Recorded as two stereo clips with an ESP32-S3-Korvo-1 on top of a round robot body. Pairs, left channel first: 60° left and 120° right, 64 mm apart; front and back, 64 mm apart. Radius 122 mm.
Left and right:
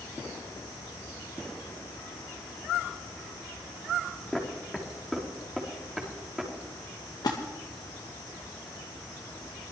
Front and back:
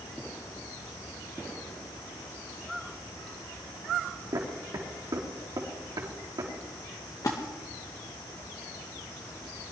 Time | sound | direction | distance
4.3 | footsteps | 150° left | 3 m
7.2 | a splash | 35° left | 1.9 m